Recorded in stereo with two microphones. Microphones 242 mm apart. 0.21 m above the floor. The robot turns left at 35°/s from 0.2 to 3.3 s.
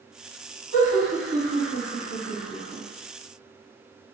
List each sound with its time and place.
0.7 s laughter: 25° right (ahead or behind), 1.4 m; by 2.8 s 10° right (ahead or behind), 1.4 m